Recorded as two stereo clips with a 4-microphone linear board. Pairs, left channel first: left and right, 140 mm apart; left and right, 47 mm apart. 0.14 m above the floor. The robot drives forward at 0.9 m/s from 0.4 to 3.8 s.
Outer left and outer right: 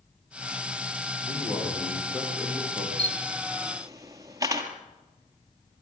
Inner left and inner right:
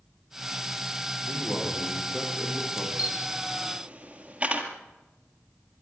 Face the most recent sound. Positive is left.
turn(degrees=-25)  # may be behind; listen again after turning